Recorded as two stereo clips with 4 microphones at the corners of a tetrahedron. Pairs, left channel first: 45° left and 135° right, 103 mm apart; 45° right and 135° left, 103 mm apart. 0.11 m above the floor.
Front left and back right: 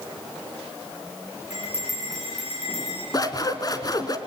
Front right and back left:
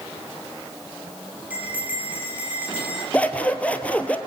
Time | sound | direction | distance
1.5 | a bell | 60° left | 7.5 m
3.1 | scissors | 25° left | 1.5 m